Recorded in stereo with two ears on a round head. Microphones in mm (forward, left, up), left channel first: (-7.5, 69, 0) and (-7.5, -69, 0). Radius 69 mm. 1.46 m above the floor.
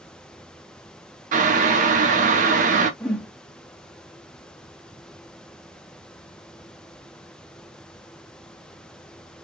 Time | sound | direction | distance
1.3 | boiling | 55° right (ahead or behind) | 0.9 m
3.0 | a whoosh | 5° left (ahead or behind) | 1.0 m